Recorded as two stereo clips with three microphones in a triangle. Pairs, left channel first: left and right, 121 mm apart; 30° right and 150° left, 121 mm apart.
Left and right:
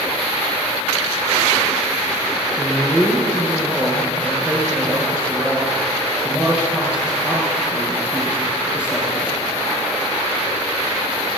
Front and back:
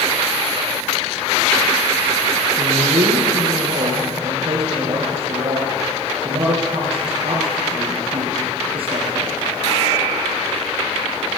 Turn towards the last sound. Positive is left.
turn(degrees=-170)